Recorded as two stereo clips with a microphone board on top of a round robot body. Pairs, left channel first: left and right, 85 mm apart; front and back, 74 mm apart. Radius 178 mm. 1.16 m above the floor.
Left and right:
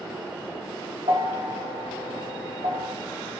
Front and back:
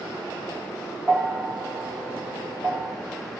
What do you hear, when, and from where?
1.1 s a bell: 95° right, 0.7 m